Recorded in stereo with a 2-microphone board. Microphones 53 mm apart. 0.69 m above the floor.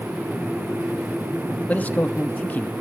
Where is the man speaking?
30° left (ahead or behind), 1.0 m.